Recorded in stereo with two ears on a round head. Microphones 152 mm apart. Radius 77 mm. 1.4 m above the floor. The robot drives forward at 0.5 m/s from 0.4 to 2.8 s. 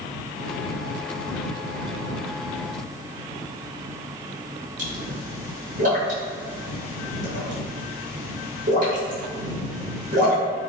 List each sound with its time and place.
4.8 s a pop: 50° right (ahead or behind), 1.0 m